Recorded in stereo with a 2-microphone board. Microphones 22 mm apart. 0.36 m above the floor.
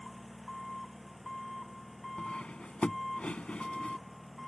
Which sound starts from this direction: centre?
An engine running, at 0.0 s.